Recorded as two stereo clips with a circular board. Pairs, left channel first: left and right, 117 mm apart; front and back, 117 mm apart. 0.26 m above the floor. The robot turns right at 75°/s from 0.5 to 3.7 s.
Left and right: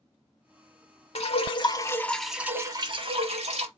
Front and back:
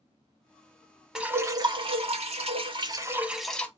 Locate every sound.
1.1 s dripping: 95° left, 0.6 m; by 3.7 s 75° right, 0.6 m